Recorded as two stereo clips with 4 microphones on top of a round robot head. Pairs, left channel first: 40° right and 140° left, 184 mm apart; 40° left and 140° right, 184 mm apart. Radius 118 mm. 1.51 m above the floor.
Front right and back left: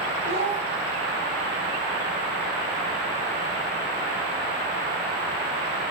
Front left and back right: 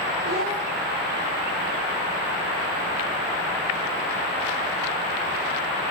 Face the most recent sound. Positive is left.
turn(degrees=-175)